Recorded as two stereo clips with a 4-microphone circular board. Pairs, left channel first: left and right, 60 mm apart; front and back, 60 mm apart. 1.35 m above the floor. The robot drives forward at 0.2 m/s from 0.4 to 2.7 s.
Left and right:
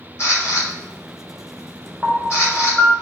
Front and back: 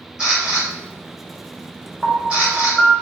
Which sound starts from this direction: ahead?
A piano, at 2.0 s.